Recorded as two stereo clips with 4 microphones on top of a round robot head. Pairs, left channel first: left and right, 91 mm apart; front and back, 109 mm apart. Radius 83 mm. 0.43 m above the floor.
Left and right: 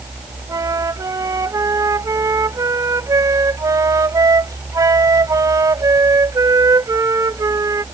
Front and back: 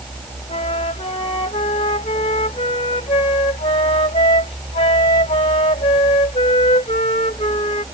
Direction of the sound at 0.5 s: 40° right.